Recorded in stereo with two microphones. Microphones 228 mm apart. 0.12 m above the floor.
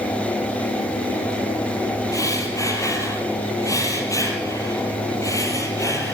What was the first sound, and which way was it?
Breathing, 15° left (ahead or behind).